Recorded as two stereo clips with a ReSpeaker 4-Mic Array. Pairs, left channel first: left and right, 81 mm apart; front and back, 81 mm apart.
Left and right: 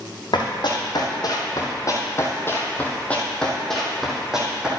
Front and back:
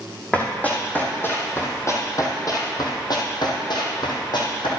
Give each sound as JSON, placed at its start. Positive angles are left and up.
{"t": 0.3, "sound": "running footsteps", "azimuth_deg": 75, "distance_m": 1.8}